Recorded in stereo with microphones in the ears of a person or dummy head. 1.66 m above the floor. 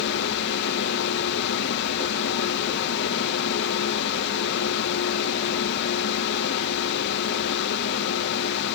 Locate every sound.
0.0 s a fan: 65° left (ahead or behind)